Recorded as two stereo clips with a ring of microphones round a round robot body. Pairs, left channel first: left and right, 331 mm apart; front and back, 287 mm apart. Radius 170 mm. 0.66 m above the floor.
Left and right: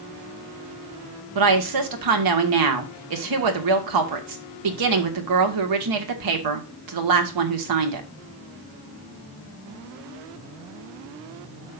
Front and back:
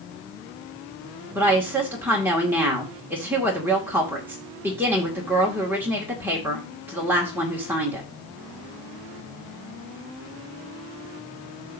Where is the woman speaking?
95° right, 1.7 m.